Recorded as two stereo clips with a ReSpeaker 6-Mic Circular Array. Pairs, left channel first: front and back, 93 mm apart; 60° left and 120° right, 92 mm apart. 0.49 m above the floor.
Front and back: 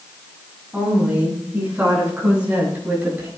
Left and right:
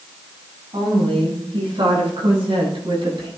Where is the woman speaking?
100° right, 6.5 m; by 3.3 s 110° right, 10.5 m.